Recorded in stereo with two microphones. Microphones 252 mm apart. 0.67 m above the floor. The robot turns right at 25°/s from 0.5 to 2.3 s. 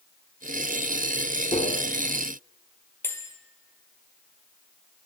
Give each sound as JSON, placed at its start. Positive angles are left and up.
{"t": 1.5, "sound": "tapping", "side_deg": 30, "distance_m": 1.8}
{"t": 3.0, "sound": "a bell", "side_deg": 10, "distance_m": 1.8}